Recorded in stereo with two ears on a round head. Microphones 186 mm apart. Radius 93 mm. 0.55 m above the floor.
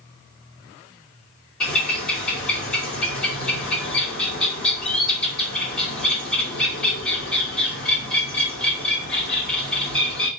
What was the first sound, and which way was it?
A bird, 5° left (ahead or behind).